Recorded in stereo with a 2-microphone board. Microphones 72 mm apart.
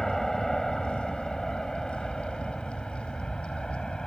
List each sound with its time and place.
0.0 s an aircraft: 5° left (ahead or behind); by 4.1 s 10° left (ahead or behind)